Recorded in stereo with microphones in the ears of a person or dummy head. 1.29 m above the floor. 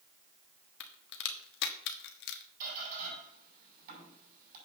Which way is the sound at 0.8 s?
65° left (ahead or behind).